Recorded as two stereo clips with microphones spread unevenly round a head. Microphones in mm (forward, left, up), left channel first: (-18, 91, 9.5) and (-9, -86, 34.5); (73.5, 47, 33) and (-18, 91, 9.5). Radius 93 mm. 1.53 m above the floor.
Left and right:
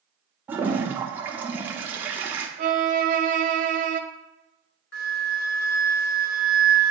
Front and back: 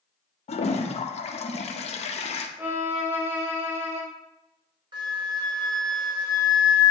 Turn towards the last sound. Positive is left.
turn(degrees=110)